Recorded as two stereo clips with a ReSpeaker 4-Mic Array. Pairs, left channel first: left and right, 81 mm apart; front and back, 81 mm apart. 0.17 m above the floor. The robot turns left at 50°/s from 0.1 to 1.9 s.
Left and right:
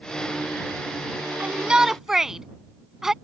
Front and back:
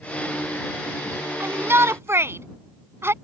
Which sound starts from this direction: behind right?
A shout, at 1.4 s.